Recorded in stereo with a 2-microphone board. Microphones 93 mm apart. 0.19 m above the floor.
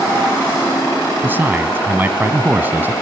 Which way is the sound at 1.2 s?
25° right (ahead or behind).